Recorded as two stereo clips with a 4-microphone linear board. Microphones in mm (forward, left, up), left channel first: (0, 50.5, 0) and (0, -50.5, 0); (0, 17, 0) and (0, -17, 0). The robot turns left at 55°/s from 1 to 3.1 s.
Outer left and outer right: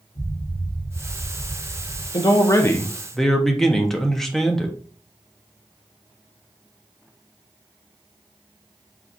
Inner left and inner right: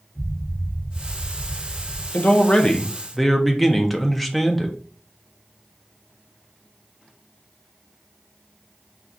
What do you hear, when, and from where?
0.1 s an explosion: 65° left, 3 m; by 2.0 s 10° left, 3 m
2.1 s a man speaking: 55° left, 0.7 m; by 4.8 s 5° left, 0.7 m